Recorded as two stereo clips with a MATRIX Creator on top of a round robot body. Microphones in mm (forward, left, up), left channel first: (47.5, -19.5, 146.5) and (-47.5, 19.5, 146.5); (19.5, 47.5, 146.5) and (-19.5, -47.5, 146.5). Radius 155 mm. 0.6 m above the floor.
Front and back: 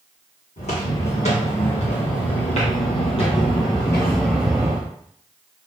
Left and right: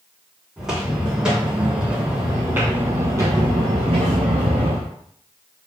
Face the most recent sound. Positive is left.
turn(degrees=-145)